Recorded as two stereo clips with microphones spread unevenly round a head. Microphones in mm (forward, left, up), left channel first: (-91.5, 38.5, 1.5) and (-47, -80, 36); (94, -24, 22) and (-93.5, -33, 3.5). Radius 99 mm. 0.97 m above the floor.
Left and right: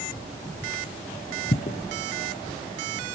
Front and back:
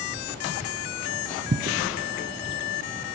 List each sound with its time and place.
1.5 s footsteps: 140° left, 1.2 m